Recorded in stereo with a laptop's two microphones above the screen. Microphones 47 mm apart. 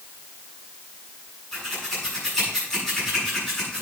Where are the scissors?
10° left (ahead or behind), 6 m.